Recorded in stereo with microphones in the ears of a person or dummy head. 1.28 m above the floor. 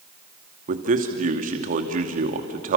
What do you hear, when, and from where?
0.7 s a man speaking: 40° right (ahead or behind), 2.5 m